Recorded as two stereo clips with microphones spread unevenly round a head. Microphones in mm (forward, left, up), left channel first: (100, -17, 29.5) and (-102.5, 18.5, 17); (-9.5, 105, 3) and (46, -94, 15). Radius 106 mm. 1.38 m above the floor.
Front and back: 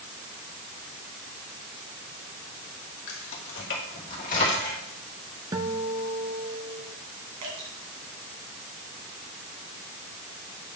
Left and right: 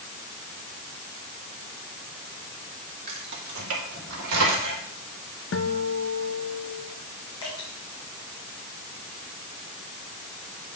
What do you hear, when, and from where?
3.1 s keys jangling: 35° right, 2.0 m; by 4.8 s 70° right, 3 m
5.5 s a guitar: 95° left, 0.7 m
7.4 s dripping: 175° left, 2.5 m